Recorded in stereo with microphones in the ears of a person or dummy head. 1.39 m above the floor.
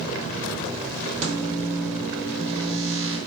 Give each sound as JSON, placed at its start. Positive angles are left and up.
{"t": 1.2, "sound": "a microwave", "side_deg": -35, "distance_m": 1.4}